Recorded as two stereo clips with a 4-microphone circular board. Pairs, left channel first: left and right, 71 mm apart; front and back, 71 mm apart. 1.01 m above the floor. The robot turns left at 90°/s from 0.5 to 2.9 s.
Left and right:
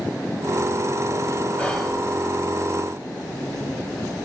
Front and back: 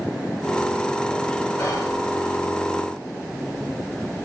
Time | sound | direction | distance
1.6 | whispering | 20° left | 2 m